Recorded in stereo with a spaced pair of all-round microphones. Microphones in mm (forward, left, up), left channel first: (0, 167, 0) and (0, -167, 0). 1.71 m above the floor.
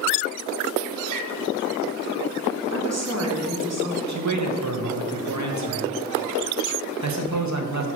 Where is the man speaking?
55° right (ahead or behind), 0.8 m.